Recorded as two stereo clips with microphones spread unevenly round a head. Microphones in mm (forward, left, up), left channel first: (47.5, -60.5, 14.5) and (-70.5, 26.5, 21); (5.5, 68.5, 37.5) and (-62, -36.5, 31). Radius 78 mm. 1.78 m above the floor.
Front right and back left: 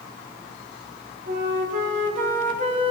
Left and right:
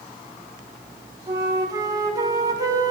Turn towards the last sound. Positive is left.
turn(degrees=175)